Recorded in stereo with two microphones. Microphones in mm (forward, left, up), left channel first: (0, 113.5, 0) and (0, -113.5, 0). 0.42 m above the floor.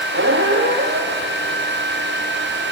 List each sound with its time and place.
0.1 s a squeak: 60° right (ahead or behind), 1.9 m